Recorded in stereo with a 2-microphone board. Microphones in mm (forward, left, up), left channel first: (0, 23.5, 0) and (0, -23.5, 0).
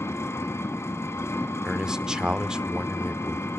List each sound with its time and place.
0.0 s an engine running: 80° left, 1.9 m
1.6 s a man speaking: 15° right (ahead or behind), 0.7 m